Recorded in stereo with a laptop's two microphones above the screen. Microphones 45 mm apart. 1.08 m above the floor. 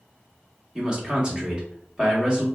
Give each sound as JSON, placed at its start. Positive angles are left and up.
{"t": 0.8, "sound": "a man speaking", "side_deg": -20, "distance_m": 1.3}